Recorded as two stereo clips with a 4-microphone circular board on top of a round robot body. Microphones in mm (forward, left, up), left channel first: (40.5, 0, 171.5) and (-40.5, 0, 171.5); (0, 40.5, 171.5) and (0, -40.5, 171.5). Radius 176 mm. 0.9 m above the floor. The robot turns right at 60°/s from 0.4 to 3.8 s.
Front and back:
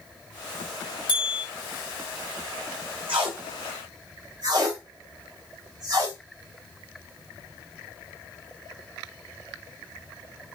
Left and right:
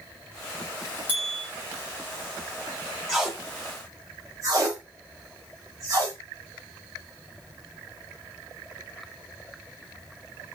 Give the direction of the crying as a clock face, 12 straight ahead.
I don't hear crying.